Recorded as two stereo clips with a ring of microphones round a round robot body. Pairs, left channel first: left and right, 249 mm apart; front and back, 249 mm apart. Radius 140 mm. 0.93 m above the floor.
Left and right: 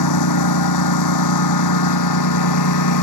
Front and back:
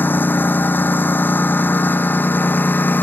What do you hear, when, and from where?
0.0 s a lawn mower: 85° left